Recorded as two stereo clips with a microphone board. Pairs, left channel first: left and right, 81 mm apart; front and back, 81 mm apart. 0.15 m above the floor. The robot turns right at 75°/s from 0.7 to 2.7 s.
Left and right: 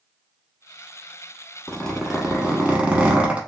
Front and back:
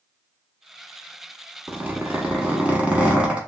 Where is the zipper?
145° left, 0.9 m; by 3.4 s 140° right, 0.9 m.